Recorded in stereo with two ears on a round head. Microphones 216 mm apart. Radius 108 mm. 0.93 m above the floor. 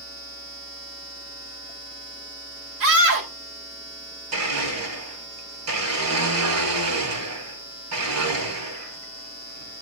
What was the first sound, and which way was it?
A scream, 60° right (ahead or behind).